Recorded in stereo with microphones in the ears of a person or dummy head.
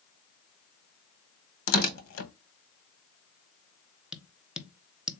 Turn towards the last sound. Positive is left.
turn(degrees=-5)  # may be behind; listen again after turning